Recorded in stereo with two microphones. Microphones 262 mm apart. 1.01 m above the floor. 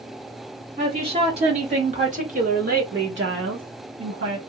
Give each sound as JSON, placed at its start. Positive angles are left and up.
{"t": 0.8, "sound": "a woman speaking", "side_deg": -20, "distance_m": 2.0}